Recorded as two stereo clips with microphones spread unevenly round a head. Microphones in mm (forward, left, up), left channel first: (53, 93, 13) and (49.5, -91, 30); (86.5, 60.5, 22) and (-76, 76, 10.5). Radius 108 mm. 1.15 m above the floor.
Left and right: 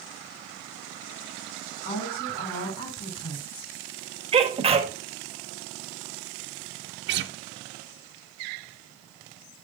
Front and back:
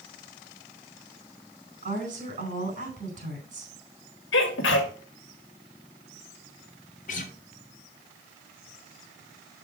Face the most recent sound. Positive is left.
turn(degrees=-65)